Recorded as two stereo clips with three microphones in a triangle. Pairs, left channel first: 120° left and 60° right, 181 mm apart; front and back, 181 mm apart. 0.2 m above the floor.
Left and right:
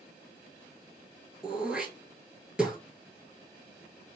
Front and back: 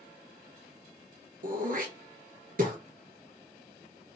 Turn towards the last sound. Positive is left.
turn(degrees=-145)